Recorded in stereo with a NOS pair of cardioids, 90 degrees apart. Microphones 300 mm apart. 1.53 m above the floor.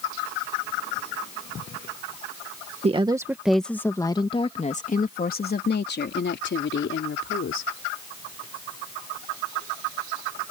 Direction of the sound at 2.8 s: 20° right.